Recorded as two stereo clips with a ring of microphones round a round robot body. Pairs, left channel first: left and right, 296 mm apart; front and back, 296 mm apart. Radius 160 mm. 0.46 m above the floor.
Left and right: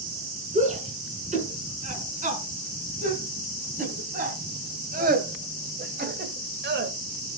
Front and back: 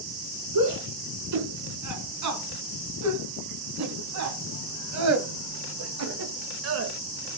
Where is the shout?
155° right, 5 m; by 6.9 s 140° right, 1.5 m.